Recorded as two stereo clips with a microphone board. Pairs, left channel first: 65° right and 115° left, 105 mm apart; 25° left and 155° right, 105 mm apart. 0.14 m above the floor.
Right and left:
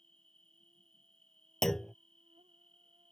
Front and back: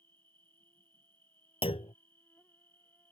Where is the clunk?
20° left.